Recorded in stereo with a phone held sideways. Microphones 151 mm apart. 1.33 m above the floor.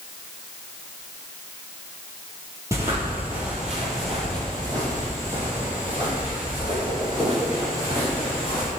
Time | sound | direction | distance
2.7 | footsteps | 20° right (ahead or behind) | 1.4 m